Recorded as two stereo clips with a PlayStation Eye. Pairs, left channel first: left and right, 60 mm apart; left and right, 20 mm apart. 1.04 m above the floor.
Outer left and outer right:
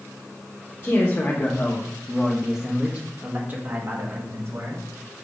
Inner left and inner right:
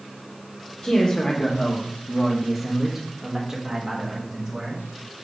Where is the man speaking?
40° left (ahead or behind), 1.4 m; by 4.8 s 45° right (ahead or behind), 2.5 m.